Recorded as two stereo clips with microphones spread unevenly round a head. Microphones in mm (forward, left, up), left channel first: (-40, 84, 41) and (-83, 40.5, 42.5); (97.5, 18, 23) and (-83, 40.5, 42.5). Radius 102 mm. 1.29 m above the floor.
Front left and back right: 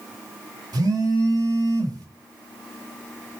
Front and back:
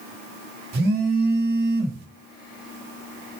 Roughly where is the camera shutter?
I don't hear a camera shutter.